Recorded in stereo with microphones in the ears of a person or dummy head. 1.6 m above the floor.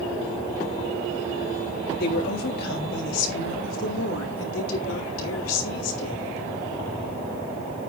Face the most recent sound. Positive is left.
turn(degrees=75)  # may be behind; listen again after turning